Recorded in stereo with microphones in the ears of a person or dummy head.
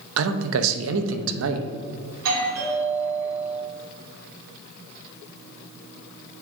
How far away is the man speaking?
About 0.7 m.